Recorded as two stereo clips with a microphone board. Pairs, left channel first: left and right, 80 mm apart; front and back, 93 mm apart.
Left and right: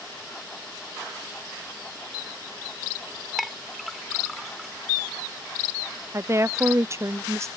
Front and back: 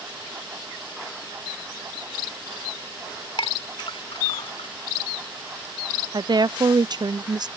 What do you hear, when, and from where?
3.4 s a clink: straight ahead
6.1 s a woman speaking: 140° right